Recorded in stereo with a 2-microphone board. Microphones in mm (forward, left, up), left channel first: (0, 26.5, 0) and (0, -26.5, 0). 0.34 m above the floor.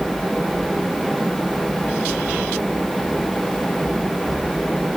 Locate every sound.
Only background noise.